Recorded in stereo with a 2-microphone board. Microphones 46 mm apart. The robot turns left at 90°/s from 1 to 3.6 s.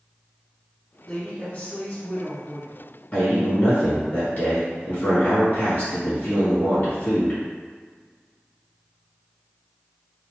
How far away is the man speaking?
About 1.7 m.